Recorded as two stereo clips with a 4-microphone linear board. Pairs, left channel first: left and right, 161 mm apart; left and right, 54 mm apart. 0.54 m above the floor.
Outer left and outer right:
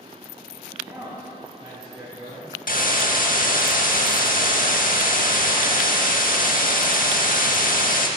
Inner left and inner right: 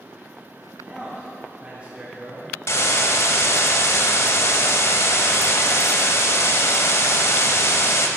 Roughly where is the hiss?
Left.